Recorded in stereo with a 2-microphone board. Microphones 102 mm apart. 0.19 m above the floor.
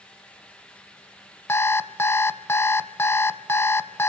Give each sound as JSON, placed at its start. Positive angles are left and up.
{"t": 1.5, "sound": "an alarm clock", "side_deg": 25, "distance_m": 0.9}